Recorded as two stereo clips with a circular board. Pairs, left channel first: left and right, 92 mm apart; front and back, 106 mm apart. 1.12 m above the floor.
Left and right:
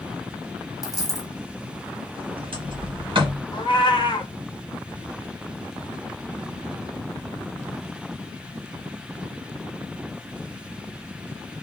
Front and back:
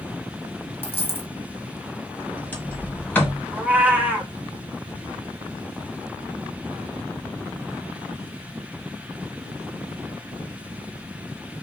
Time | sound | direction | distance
0.8 | a dropped coin | 60° left | 1.3 m
2.1 | a sliding door | 75° right | 1.2 m
3.5 | a cat meowing | 105° left | 0.7 m